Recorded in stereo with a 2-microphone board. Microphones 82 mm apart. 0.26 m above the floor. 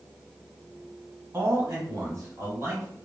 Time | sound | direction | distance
1.3 | a man speaking | 35° right (ahead or behind) | 1.4 m